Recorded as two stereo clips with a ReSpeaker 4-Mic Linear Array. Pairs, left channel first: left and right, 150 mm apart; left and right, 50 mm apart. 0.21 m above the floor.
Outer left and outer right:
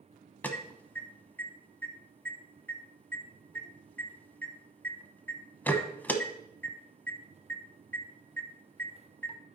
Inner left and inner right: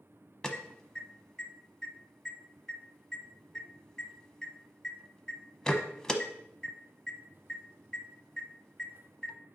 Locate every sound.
0.4 s an alarm: 10° left (ahead or behind), 0.8 m